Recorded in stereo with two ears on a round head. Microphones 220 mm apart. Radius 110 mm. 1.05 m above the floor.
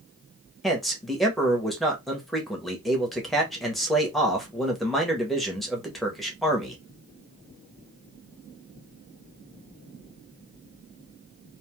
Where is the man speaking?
Centre (ahead or behind), 0.9 m.